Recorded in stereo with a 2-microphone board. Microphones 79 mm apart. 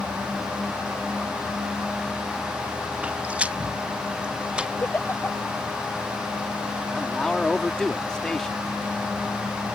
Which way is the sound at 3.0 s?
15° right (ahead or behind).